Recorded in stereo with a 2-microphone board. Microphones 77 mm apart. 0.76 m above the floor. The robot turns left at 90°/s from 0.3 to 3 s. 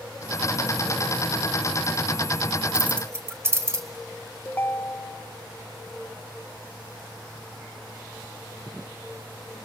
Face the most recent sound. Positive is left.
turn(degrees=25)  # may be behind; listen again after turning